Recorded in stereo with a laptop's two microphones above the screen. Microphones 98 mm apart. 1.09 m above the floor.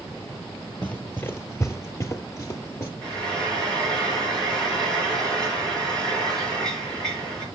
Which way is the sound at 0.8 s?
20° left (ahead or behind).